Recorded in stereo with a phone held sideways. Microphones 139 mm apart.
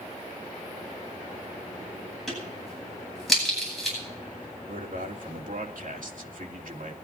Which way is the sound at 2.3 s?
Centre (ahead or behind).